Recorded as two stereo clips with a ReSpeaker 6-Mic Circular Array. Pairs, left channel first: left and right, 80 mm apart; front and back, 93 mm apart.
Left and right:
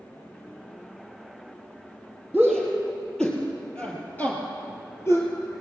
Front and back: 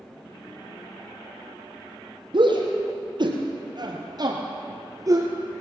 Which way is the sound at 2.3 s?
Straight behind.